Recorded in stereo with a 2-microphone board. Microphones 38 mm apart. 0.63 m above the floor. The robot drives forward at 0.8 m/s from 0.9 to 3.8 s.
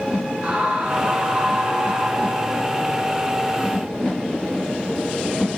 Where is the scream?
45° right (ahead or behind), 2.5 m; by 2.6 s 30° right (ahead or behind), 4 m.